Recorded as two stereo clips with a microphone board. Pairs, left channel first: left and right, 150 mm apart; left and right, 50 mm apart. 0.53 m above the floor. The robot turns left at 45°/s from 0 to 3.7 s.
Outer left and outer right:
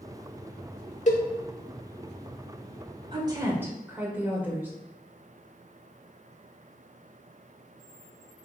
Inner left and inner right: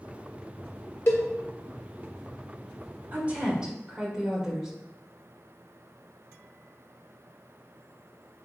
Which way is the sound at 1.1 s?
55° left (ahead or behind).